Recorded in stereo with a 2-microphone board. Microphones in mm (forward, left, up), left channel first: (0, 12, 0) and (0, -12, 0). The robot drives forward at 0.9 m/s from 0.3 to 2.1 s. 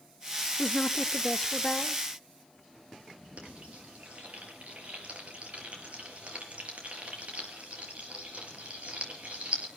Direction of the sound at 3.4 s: 55° right (ahead or behind).